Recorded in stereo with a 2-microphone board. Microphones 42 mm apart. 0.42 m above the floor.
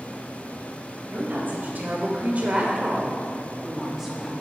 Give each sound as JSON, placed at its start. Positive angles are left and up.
{"t": 1.1, "sound": "a woman speaking", "side_deg": -55, "distance_m": 2.5}